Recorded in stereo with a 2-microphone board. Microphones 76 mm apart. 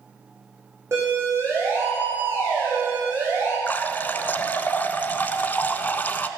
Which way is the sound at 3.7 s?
25° left (ahead or behind).